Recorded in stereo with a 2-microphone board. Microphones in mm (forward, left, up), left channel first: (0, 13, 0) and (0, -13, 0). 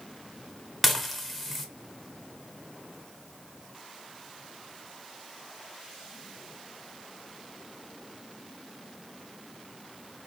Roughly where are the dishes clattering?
Centre.